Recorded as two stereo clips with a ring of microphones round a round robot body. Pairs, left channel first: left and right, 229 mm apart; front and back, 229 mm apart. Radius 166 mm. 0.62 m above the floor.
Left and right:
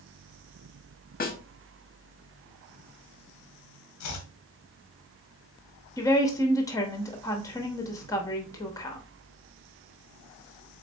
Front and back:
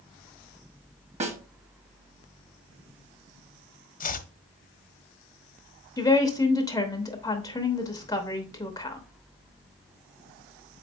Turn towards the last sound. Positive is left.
turn(degrees=45)